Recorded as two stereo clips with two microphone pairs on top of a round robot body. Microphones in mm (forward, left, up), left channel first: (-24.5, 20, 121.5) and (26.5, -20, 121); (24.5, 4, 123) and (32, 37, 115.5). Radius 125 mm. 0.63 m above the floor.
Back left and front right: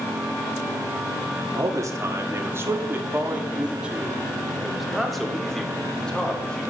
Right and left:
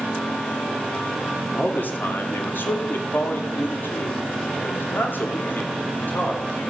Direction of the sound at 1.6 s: 70° right.